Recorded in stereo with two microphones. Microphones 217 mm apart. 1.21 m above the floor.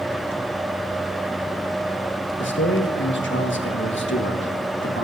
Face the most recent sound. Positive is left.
turn(degrees=65)  # may be behind; listen again after turning